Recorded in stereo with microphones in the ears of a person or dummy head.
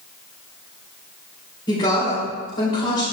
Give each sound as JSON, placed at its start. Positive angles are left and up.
{"t": 1.7, "sound": "a woman speaking", "side_deg": 25, "distance_m": 4.5}